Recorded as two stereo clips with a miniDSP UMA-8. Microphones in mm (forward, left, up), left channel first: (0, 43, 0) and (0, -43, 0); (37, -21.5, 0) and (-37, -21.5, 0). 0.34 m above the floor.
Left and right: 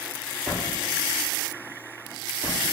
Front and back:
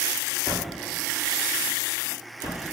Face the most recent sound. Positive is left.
turn(degrees=-15)